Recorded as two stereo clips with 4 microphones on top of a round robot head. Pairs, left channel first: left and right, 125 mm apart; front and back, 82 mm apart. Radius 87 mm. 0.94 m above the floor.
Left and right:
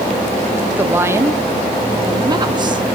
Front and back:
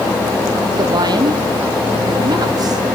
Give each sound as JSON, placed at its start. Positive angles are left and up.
{"t": 0.8, "sound": "a woman speaking", "azimuth_deg": -165, "distance_m": 1.4}